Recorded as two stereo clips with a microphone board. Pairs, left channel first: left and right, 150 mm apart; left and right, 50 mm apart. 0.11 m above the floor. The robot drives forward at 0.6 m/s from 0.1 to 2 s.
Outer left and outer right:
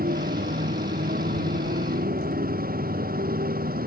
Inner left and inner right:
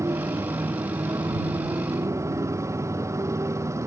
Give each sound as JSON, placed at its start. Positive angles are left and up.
{"t": 0.0, "sound": "a motorcycle", "side_deg": -80}